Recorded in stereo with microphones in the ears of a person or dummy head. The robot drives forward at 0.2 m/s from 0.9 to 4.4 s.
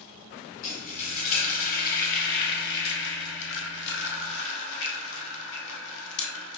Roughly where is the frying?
Left.